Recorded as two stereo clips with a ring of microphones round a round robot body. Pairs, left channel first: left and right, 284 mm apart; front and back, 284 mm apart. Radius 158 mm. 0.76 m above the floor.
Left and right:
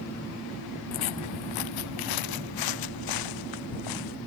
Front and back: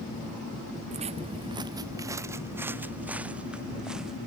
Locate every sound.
0.9 s footsteps: 110° left; by 4.2 s 90° left